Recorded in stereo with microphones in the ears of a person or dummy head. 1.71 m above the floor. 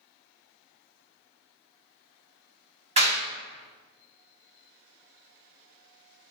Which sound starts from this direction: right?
A clap, at 3.0 s.